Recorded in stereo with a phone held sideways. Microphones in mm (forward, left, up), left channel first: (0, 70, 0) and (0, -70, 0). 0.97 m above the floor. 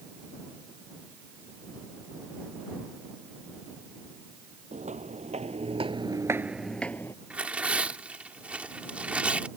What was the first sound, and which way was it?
Footsteps, 60° right (ahead or behind).